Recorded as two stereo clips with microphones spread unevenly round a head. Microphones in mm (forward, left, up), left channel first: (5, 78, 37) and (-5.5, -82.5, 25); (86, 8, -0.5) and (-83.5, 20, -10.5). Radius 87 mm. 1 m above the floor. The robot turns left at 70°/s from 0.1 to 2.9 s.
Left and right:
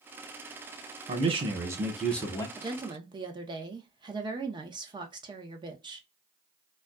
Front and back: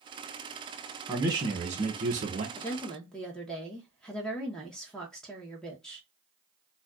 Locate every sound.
1.1 s a man speaking: 115° right, 0.9 m; by 2.5 s 150° left, 0.9 m
2.6 s a woman speaking: 70° right, 0.7 m; by 6.1 s 90° right, 0.7 m